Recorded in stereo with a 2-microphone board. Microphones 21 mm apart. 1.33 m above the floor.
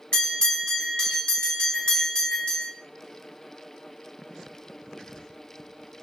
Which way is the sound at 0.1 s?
55° left (ahead or behind).